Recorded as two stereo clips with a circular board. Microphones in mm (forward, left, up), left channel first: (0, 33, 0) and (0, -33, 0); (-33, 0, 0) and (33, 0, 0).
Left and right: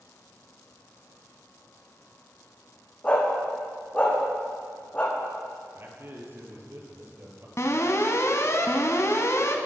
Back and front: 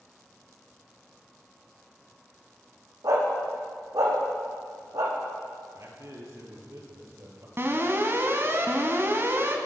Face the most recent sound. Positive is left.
turn(degrees=50)